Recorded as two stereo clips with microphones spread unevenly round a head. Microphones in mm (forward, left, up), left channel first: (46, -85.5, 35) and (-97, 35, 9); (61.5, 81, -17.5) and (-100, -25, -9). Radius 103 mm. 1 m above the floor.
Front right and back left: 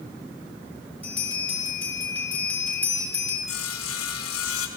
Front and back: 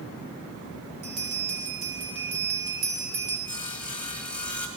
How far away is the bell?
About 4 m.